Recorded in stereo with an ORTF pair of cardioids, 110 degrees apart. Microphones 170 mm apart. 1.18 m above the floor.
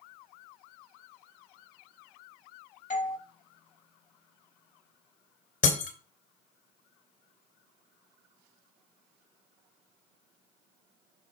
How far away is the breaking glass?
About 3 m.